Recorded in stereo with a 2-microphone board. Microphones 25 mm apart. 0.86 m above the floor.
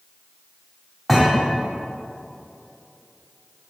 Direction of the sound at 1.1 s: 15° right (ahead or behind).